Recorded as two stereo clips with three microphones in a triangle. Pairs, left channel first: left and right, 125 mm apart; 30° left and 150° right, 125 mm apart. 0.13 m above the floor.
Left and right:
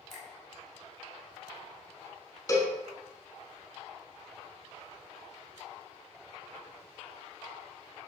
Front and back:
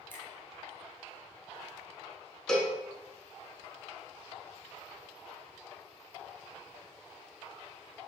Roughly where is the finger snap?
Ahead.